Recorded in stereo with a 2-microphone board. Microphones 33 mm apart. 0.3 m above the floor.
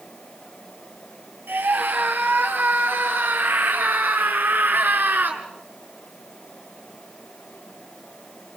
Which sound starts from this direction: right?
A scream, at 1.5 s.